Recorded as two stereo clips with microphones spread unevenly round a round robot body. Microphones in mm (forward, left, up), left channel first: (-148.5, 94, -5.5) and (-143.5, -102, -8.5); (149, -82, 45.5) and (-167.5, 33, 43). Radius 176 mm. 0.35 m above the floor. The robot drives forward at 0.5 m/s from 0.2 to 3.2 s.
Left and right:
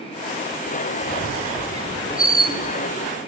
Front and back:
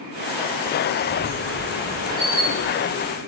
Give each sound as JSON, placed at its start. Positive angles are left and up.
{"t": 1.0, "sound": "a squeak", "azimuth_deg": -135, "distance_m": 1.2}